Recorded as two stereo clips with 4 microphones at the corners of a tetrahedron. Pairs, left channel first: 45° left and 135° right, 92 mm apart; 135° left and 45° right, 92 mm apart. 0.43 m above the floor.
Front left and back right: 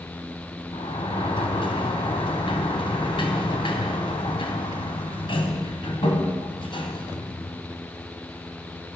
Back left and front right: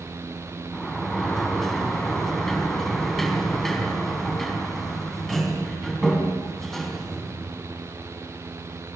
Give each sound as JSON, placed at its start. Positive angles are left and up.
{"t": 0.7, "sound": "a sliding door", "azimuth_deg": 50, "distance_m": 3.5}